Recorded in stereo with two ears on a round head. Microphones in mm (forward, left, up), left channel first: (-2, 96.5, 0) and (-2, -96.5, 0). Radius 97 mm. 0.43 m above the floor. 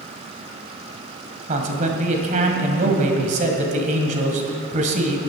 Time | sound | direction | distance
1.5 | a man speaking | 35° right (ahead or behind) | 2.0 m